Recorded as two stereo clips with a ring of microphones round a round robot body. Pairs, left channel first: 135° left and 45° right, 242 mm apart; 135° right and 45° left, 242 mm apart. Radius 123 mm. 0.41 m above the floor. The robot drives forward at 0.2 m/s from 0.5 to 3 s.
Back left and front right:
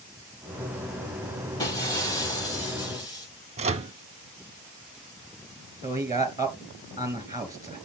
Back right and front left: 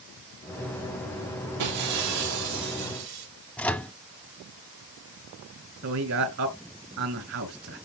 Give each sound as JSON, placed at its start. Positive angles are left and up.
{"t": 1.6, "sound": "breaking glass", "azimuth_deg": 60, "distance_m": 8.0}
{"t": 3.6, "sound": "a microwave", "azimuth_deg": -55, "distance_m": 0.6}
{"t": 5.8, "sound": "a man speaking", "azimuth_deg": 30, "distance_m": 2.5}